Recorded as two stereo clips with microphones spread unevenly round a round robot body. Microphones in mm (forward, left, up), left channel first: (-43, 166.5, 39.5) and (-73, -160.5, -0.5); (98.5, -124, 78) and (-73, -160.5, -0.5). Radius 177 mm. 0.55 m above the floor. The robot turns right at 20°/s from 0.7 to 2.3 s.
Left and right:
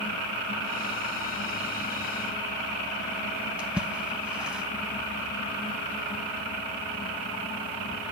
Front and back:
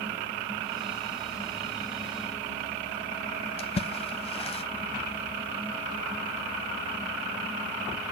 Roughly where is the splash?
Ahead.